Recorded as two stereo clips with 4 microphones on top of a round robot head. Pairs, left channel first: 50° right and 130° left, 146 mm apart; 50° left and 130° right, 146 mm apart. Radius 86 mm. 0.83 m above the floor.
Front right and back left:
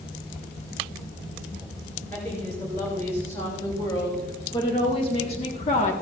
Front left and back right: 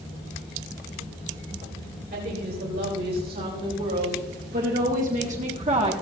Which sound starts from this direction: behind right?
A woman speaking, at 2.1 s.